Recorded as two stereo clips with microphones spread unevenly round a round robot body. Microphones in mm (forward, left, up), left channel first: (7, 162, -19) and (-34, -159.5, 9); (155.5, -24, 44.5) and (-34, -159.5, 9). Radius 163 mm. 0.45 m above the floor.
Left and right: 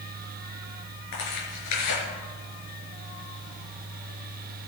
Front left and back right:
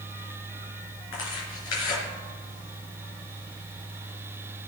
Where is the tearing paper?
50° left, 4 m.